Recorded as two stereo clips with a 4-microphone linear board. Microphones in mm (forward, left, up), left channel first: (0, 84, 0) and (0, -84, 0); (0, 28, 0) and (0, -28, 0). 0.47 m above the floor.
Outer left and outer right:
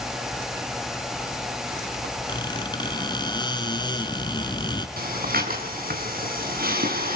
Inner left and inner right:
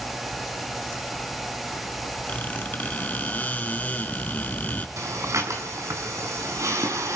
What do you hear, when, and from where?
2.3 s a squeak: 25° left (ahead or behind), 2.5 m
5.0 s breathing: 65° right (ahead or behind), 5.5 m